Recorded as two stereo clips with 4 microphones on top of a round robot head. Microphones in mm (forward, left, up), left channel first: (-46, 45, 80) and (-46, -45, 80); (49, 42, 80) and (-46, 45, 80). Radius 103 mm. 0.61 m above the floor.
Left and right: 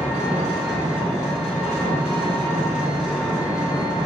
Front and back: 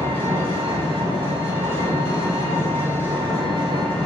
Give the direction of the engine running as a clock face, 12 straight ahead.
6 o'clock.